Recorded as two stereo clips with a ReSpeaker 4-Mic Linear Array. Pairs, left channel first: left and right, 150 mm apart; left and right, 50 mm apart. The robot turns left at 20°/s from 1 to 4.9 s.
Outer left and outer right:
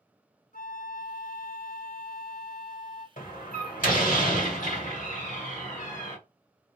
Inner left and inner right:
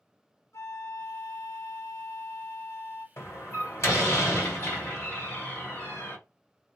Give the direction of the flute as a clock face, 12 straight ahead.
9 o'clock.